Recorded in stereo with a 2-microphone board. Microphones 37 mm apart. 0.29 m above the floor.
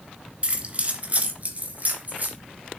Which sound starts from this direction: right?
Keys jangling, at 0.4 s.